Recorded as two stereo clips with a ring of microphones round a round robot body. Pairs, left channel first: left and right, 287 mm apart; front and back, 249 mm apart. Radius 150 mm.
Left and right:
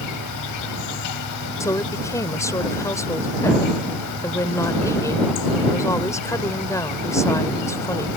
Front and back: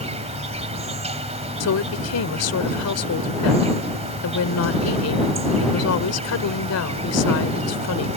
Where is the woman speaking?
10° left.